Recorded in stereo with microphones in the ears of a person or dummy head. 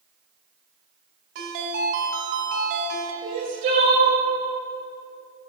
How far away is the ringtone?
About 1.9 m.